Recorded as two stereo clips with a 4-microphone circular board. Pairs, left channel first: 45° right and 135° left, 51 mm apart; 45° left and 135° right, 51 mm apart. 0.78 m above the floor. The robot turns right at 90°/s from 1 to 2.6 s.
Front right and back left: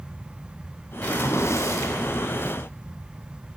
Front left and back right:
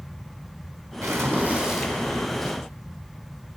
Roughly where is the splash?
Behind right.